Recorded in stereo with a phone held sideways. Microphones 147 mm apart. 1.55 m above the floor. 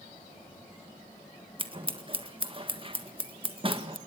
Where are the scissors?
35° right (ahead or behind), 1.7 m.